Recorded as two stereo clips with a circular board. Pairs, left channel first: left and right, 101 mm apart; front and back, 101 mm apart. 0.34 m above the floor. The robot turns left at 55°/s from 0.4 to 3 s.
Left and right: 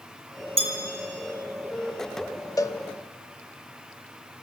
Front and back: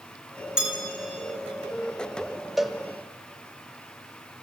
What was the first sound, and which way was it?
A bell, 100° right.